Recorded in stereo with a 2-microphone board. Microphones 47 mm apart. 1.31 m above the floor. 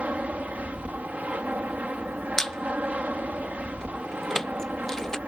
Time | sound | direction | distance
0.0 | an aircraft | 30° right (ahead or behind) | ?
2.4 | a squeak | 10° left (ahead or behind) | ?